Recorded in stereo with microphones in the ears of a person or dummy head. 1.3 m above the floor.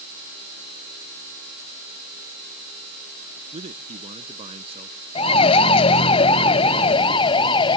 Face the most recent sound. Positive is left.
turn(degrees=30)  # may be behind; listen again after turning